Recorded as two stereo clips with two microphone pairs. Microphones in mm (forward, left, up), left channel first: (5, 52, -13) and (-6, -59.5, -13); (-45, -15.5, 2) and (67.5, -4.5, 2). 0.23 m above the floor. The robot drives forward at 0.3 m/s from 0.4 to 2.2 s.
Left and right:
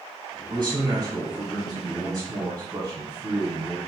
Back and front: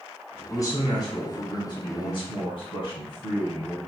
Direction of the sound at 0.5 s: 130° right.